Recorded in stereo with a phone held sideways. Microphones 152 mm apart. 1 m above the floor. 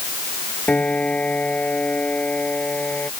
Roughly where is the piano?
Centre.